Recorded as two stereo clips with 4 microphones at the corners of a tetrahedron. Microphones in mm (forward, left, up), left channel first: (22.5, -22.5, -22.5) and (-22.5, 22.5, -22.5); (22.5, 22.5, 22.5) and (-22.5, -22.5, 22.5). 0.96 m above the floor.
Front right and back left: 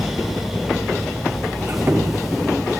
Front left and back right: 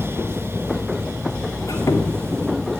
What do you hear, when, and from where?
1.6 s a squeak: 80° left, 1.6 m